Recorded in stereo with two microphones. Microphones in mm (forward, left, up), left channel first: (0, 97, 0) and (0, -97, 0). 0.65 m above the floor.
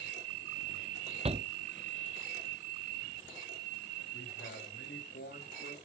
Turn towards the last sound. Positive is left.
turn(degrees=70)  # may be behind; listen again after turning